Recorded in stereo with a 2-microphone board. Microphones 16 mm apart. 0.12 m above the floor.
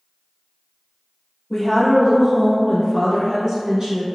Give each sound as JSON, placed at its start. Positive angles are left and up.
{"t": 1.5, "sound": "a woman speaking", "side_deg": 20, "distance_m": 1.2}